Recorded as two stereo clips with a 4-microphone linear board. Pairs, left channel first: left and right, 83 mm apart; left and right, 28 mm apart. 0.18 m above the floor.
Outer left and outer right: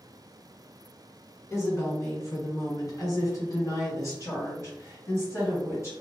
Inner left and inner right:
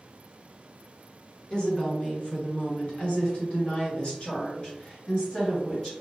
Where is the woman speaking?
35° left (ahead or behind), 1.7 m.